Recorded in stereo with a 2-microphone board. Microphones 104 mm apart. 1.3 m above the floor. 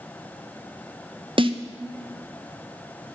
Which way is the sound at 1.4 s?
55° right (ahead or behind).